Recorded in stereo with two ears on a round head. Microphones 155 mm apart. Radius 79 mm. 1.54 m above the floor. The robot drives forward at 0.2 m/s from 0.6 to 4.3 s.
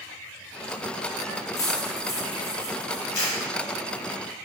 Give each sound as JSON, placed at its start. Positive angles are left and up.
{"t": 1.6, "sound": "cutlery clinking", "side_deg": 20, "distance_m": 0.6}
{"t": 3.1, "sound": "a camera shutter", "side_deg": 70, "distance_m": 1.9}